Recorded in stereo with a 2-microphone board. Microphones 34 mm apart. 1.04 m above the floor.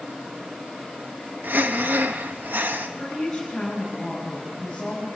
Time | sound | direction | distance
1.4 | breathing | 70° right (ahead or behind) | 1.1 m
3.0 | a woman speaking | 15° left (ahead or behind) | 5 m